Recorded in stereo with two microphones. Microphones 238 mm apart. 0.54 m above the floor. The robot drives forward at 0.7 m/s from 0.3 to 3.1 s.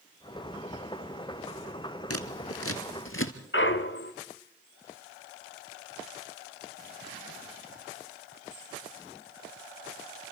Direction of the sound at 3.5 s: 55° left (ahead or behind).